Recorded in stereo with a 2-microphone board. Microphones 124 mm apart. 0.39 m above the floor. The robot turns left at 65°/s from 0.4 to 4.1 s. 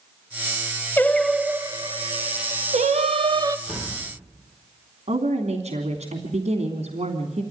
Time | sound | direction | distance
1.0 | singing | 15° left | 0.8 m
3.7 | a door slam | 5° right (ahead or behind) | 8.5 m
5.1 | a woman speaking | 65° right (ahead or behind) | 3 m